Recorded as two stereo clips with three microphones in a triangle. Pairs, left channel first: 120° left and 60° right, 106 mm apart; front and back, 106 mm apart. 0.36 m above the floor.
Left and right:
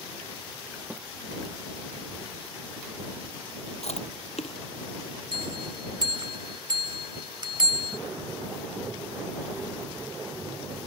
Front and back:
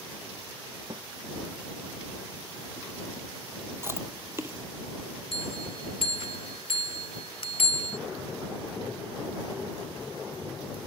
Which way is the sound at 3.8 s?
115° left.